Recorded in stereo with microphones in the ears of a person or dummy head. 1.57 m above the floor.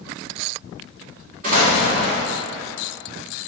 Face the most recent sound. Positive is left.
turn(degrees=-50)  # may be behind; listen again after turning